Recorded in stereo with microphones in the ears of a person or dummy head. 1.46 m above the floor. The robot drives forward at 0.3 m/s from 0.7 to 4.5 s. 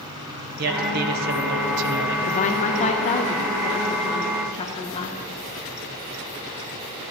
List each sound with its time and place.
0.6 s a man speaking: 45° right (ahead or behind), 1.3 m; by 2.2 s 65° right (ahead or behind), 1.0 m
2.3 s a woman speaking: 40° left (ahead or behind), 0.8 m; by 5.2 s 20° left (ahead or behind), 1.4 m